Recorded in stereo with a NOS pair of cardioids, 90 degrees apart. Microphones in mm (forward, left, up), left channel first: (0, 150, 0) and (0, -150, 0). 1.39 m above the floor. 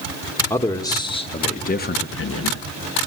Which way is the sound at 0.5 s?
5° left.